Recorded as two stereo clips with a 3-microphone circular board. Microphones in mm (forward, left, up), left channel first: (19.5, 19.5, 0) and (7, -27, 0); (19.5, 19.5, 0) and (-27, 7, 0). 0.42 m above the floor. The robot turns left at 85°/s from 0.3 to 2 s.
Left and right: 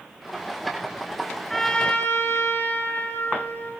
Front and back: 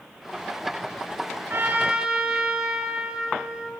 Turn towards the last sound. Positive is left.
turn(degrees=115)